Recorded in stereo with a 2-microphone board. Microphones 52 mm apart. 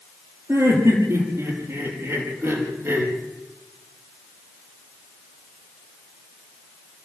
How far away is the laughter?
About 6.5 m.